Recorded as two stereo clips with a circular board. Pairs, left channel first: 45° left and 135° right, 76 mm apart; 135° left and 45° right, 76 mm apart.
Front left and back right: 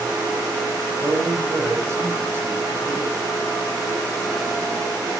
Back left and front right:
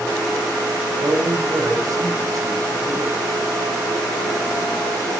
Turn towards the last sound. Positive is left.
turn(degrees=-85)